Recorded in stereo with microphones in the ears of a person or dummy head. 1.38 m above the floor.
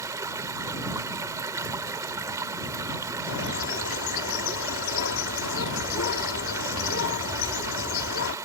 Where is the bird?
75° left (ahead or behind).